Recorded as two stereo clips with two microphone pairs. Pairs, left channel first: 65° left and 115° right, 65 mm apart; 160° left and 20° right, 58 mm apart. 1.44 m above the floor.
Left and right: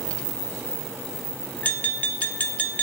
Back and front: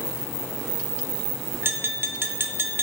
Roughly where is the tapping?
Ahead.